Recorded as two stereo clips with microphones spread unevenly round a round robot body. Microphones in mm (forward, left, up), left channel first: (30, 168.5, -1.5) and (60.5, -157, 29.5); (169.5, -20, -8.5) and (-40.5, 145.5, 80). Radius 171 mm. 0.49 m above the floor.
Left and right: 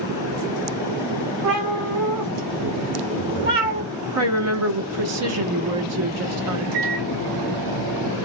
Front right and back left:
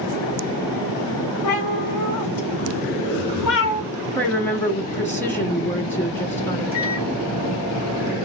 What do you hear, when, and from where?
1.4 s a cat meowing: 65° right, 1.6 m; by 3.8 s 15° right, 0.8 m
4.2 s a woman speaking: 90° right, 0.9 m
6.7 s a microwave: 95° right, 2 m